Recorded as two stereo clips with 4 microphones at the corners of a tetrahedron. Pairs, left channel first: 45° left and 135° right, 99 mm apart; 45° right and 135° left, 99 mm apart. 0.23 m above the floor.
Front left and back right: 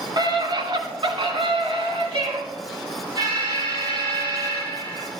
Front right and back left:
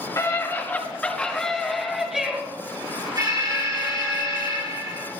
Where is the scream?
100° right, 2.5 m; by 2.4 s 145° right, 3.5 m.